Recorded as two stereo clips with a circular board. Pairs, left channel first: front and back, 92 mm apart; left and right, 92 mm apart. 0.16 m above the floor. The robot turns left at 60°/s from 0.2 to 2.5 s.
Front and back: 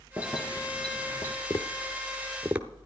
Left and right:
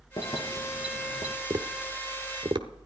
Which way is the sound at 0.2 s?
115° left.